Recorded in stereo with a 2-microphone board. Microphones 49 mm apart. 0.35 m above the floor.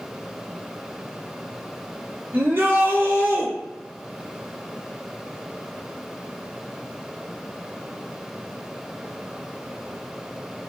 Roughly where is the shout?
Right.